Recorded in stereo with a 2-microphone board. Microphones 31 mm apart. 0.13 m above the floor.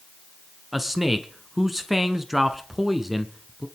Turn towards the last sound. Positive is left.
turn(degrees=-10)  # may be behind; listen again after turning